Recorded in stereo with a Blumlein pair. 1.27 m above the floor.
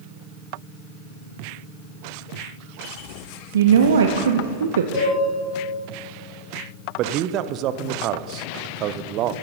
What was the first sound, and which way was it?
A woman speaking, 65° right.